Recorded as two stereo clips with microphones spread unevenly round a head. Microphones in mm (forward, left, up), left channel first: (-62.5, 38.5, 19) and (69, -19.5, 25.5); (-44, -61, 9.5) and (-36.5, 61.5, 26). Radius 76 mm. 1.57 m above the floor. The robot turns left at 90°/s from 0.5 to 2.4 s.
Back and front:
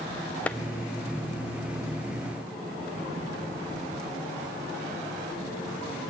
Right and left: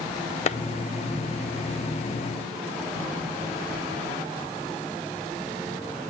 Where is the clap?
120° right, 0.6 m; by 0.6 s 130° right, 0.6 m.